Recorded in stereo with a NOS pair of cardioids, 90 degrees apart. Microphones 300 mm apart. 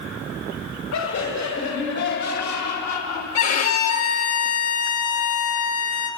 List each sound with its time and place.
0.9 s laughter: 70° left, 7 m; by 3.2 s 75° left, 4.5 m
3.4 s a violin: 65° left, 3.5 m